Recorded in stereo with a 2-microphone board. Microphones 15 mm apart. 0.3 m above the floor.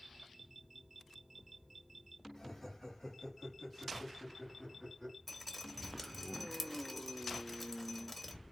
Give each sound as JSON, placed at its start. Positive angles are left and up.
{"t": 2.4, "sound": "laughter", "side_deg": 25, "distance_m": 1.7}
{"t": 5.3, "sound": "dripping", "side_deg": 5, "distance_m": 0.9}